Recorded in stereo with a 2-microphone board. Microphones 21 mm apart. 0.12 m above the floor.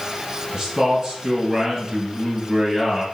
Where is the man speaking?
35° right (ahead or behind), 1.9 m.